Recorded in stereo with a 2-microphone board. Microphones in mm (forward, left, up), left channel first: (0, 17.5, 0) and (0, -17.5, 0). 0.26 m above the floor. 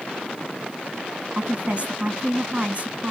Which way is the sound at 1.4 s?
45° right (ahead or behind).